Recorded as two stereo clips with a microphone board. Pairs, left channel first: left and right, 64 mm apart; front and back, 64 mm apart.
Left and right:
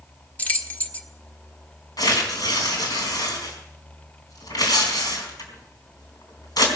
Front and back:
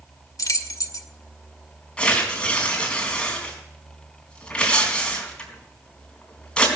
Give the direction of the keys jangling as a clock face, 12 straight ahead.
11 o'clock.